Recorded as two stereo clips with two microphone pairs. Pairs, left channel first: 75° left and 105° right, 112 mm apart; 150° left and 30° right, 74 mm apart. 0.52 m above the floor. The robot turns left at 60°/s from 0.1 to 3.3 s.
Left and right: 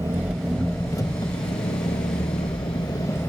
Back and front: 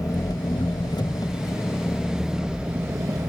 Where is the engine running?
170° right, 1.0 m; by 3.3 s straight ahead, 1.0 m.